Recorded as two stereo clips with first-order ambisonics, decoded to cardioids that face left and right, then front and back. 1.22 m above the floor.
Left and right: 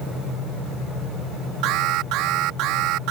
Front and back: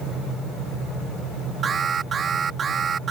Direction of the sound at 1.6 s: 115° right.